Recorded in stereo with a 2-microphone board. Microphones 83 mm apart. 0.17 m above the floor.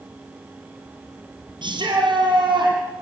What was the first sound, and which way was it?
A shout, 70° right (ahead or behind).